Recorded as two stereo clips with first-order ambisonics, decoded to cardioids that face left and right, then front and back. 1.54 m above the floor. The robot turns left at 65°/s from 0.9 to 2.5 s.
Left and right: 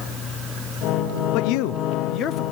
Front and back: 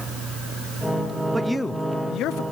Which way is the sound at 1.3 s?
100° left.